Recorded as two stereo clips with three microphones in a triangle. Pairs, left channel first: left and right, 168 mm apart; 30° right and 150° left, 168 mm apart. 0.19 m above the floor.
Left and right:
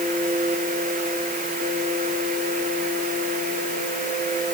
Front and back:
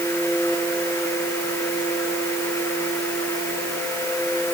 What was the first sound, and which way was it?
Only background noise.